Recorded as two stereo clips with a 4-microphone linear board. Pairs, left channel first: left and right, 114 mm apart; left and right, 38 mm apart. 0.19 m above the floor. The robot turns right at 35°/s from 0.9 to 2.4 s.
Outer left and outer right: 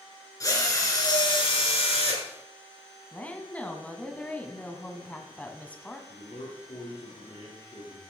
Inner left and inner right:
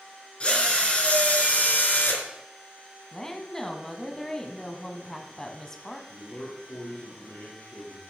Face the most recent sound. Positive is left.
turn(degrees=65)  # may be behind; listen again after turning